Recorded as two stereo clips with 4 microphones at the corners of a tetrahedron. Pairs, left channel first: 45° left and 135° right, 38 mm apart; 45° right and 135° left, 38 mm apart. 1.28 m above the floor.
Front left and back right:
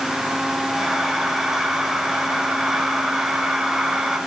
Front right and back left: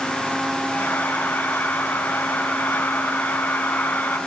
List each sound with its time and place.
0.7 s breathing: 45° right, 4.5 m